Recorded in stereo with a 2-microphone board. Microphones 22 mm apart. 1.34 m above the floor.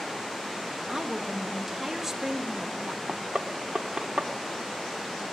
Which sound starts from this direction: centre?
A woman speaking, at 0.9 s.